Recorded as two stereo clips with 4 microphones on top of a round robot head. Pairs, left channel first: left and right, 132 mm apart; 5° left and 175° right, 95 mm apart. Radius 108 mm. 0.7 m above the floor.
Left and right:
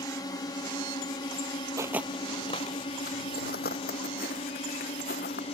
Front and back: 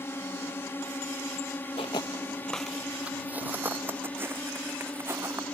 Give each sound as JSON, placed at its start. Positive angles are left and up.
{"t": 0.0, "sound": "a drone", "azimuth_deg": 50}
{"t": 1.8, "sound": "footsteps", "azimuth_deg": -30}